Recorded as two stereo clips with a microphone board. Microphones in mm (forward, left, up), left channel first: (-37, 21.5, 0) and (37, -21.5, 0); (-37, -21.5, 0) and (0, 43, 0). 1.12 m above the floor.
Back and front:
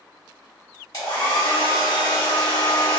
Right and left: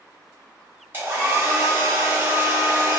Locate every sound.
0.9 s a hair dryer: 115° left, 1.2 m